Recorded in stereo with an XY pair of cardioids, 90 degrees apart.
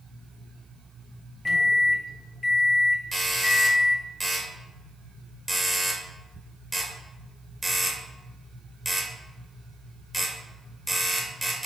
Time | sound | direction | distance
1.4 | a microwave | 40° left | 0.7 m
3.1 | a doorbell | 5° left | 1.0 m